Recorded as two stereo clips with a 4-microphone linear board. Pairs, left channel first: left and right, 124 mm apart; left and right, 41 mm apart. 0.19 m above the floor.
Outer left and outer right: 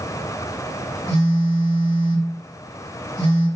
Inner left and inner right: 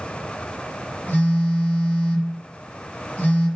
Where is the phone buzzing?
40° left (ahead or behind), 1.9 m.